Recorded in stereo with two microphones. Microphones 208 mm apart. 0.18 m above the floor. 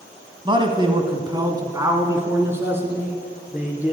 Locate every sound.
0.5 s a man speaking: 25° right (ahead or behind), 1.3 m; by 3.9 s 5° right (ahead or behind), 3 m